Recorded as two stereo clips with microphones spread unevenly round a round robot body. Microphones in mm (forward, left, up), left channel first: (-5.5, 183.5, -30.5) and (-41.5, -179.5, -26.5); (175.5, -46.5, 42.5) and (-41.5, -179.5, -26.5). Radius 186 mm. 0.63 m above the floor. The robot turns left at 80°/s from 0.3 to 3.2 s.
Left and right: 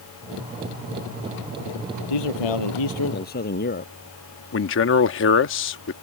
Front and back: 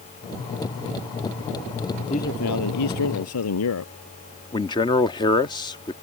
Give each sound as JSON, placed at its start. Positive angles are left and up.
{"t": 2.1, "sound": "a man speaking", "azimuth_deg": 110}
{"t": 4.5, "sound": "a man speaking", "azimuth_deg": 120}